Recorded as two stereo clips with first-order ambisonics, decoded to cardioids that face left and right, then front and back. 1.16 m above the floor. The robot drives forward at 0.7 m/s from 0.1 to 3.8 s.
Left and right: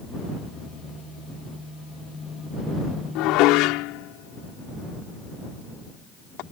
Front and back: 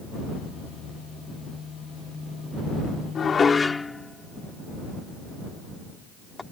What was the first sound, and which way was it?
Dishes clattering, 65° left.